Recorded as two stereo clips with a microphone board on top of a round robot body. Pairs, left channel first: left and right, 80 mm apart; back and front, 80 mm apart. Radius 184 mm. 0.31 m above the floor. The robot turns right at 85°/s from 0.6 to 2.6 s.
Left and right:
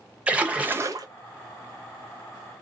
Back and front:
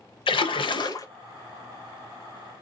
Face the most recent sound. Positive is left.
turn(degrees=5)